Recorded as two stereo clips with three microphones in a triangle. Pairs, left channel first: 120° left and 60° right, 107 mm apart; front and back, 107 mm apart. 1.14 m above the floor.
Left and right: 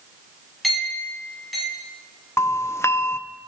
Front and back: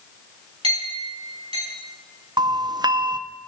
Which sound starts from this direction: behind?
A doorbell, at 2.4 s.